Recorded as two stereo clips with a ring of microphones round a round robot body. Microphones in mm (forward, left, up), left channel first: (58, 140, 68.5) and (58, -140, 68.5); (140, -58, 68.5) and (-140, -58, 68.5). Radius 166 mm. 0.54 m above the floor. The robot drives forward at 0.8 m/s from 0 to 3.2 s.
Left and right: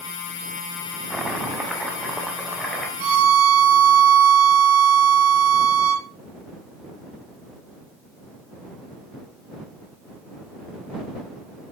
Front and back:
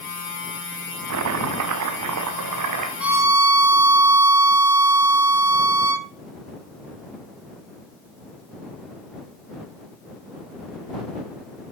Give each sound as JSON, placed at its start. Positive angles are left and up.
{"t": 1.1, "sound": "chopping", "azimuth_deg": -175, "distance_m": 0.9}
{"t": 3.0, "sound": "a violin", "azimuth_deg": -95, "distance_m": 1.2}